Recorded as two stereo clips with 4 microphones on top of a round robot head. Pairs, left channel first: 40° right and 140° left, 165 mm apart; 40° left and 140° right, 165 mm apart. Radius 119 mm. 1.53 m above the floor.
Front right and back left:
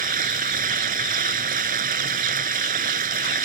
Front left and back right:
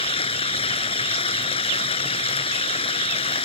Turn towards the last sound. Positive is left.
turn(degrees=100)